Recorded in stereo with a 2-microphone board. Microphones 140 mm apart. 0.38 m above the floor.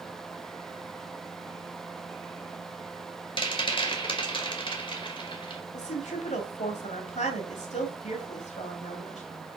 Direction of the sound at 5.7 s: 55° left (ahead or behind).